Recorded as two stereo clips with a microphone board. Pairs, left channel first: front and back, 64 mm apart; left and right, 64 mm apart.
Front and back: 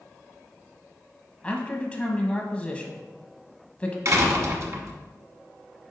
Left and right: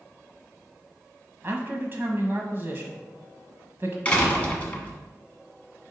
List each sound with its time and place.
1.4 s a man speaking: 60° right, 1.2 m
4.0 s a door slam: 155° left, 1.2 m